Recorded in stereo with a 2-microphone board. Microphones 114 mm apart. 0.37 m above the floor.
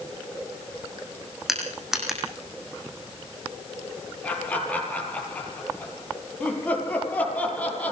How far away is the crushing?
About 6.5 m.